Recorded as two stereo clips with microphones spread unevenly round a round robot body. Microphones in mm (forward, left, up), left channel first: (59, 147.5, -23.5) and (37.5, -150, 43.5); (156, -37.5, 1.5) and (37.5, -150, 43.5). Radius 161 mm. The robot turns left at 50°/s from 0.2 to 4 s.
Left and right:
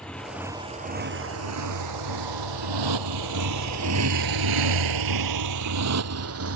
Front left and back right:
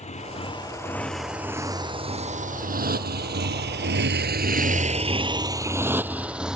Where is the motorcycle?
Straight ahead; by 6.6 s 50° right.